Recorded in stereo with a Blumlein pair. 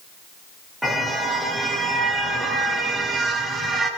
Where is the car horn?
Straight ahead, 5 m; by 3.9 s 15° right, 6.5 m.